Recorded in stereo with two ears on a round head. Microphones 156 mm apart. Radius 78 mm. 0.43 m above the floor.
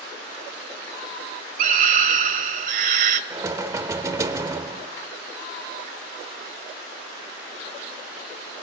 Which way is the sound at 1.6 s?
50° right (ahead or behind).